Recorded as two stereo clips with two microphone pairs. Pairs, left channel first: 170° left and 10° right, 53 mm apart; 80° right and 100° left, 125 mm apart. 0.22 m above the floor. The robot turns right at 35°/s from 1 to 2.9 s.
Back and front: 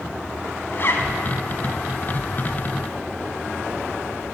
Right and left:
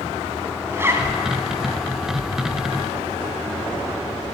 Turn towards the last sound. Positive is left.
turn(degrees=-135)